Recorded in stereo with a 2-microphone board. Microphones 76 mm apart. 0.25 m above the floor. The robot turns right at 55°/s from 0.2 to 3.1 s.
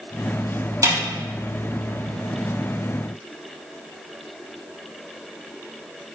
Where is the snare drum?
50° right (ahead or behind), 3.5 m; by 1.0 s 60° right (ahead or behind), 3.5 m.